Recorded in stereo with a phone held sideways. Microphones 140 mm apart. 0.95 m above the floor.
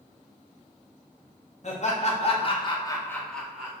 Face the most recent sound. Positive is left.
turn(degrees=-5)  # may be behind; listen again after turning